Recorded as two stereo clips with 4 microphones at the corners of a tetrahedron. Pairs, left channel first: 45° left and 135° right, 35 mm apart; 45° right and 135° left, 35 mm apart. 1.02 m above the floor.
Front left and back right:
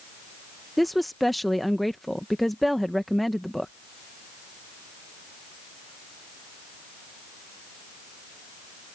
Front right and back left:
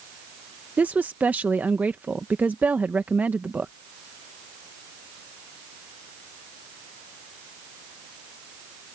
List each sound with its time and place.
0.8 s a woman speaking: 130° left